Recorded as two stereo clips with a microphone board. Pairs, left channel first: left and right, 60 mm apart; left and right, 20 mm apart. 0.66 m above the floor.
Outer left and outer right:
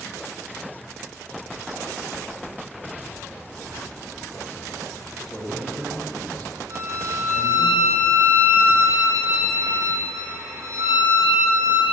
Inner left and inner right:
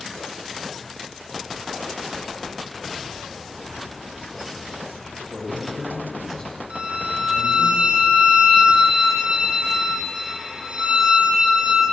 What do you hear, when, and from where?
5.3 s a man speaking: centre (ahead or behind), 3.5 m; by 7.7 s 35° left (ahead or behind), 3 m
6.7 s a violin: 55° right (ahead or behind), 3 m